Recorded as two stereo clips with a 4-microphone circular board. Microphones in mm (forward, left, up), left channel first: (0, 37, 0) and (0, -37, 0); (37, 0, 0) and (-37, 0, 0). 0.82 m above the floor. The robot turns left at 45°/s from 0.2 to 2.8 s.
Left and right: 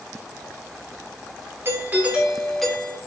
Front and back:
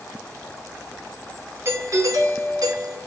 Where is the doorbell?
140° right, 2.5 m; by 3.0 s 170° left, 2.5 m.